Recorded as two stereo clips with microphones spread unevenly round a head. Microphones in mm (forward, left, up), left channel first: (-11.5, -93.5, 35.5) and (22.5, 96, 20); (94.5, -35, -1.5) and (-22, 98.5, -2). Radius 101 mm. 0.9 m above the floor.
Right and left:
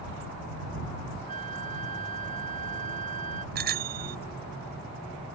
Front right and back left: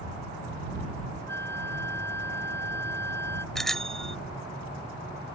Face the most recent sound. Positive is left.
turn(degrees=40)